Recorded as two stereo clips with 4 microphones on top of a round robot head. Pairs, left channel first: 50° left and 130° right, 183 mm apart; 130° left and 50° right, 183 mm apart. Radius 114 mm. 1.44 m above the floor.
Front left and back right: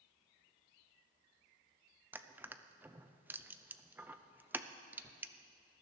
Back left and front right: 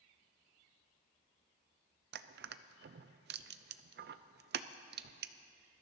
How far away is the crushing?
About 0.5 m.